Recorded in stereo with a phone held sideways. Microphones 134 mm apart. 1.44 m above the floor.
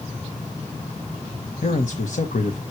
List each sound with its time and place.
1.6 s a man speaking: 70° left (ahead or behind), 1.3 m